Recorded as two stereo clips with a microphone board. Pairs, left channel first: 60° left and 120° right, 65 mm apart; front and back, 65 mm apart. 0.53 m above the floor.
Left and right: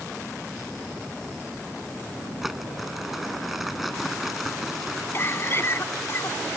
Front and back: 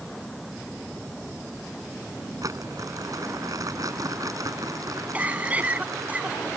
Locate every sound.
2.4 s crumpling: 155° left
5.1 s a cough: 110° left